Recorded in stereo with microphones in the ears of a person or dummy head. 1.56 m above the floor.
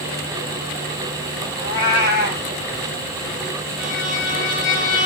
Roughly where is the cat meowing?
Left.